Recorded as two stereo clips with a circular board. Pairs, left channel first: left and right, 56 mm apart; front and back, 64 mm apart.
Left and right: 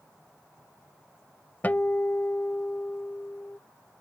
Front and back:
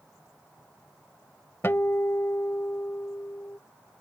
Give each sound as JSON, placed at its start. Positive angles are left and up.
{"t": 1.6, "sound": "a guitar", "azimuth_deg": 40}